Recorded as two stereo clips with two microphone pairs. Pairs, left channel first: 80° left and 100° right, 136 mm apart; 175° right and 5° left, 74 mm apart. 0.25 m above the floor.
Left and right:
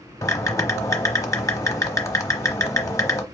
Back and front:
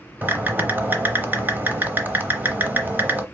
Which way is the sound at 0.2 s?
40° left.